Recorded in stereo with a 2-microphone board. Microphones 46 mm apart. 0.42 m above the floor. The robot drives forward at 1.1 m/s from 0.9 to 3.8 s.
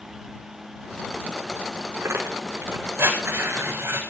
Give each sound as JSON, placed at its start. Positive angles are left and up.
{"t": 2.0, "sound": "tearing paper", "side_deg": -70, "distance_m": 8.0}